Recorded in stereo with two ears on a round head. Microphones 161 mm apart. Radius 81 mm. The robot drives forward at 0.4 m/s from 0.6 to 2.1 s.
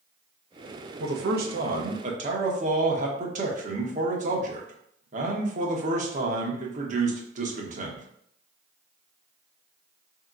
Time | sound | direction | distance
1.0 | a man speaking | 65° right (ahead or behind) | 0.8 m